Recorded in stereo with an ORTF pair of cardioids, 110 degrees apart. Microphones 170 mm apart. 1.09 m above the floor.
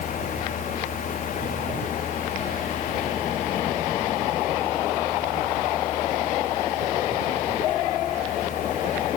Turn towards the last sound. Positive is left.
turn(degrees=50)